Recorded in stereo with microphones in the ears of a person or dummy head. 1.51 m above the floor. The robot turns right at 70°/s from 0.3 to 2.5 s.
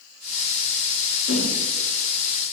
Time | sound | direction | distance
1.3 | a whoosh | 80° left | 1.7 m